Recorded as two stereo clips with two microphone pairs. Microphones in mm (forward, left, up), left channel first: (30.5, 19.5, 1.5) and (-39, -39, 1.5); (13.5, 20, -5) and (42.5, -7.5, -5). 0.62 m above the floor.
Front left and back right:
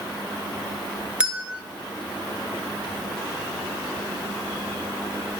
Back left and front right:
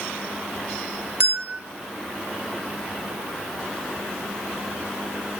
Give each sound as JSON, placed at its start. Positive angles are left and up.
{"t": 1.2, "sound": "a bell", "azimuth_deg": -60, "distance_m": 1.8}